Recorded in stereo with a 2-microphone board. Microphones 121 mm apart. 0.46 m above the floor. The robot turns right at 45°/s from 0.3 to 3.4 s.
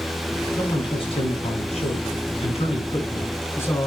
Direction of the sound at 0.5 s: 30° left.